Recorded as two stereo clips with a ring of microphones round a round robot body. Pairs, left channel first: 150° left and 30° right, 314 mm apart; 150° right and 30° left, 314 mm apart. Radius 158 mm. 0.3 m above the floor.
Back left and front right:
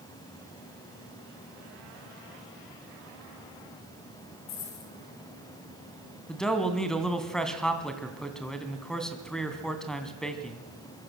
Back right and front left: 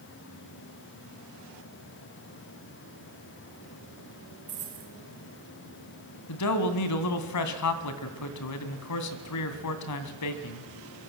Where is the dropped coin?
100° left, 5 m.